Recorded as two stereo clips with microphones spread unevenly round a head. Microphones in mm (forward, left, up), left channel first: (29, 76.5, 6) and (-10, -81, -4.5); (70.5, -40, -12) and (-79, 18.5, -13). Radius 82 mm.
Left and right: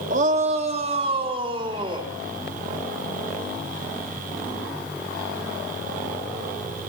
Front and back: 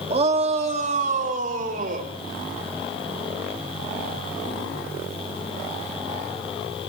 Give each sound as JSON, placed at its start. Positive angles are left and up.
{"t": 0.1, "sound": "a shout", "azimuth_deg": -150, "distance_m": 3.0}